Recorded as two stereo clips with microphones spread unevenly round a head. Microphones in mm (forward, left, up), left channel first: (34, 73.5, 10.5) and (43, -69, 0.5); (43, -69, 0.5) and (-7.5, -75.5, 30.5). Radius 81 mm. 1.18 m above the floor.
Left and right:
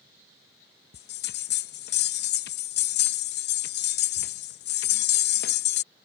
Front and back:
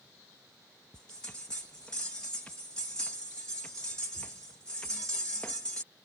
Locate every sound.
0.9 s a bell: 100° left